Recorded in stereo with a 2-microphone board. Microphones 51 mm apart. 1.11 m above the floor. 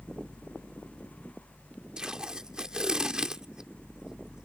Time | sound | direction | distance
2.0 | tape being pulled | 15° right (ahead or behind) | ?